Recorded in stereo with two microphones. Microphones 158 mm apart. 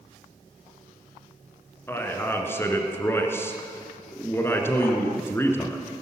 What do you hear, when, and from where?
1.9 s a man speaking: 15° left (ahead or behind), 1.5 m